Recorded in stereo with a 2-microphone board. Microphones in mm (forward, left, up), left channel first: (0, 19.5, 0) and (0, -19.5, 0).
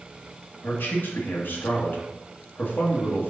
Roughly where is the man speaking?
Left.